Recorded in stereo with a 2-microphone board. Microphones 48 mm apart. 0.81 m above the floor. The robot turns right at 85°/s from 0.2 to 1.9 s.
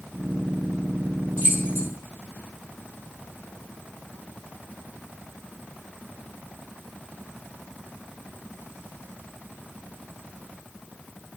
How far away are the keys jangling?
About 4.5 m.